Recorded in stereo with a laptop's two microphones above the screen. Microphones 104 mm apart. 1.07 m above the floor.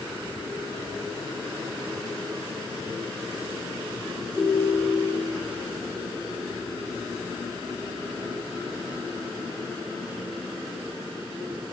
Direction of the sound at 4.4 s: 15° right (ahead or behind).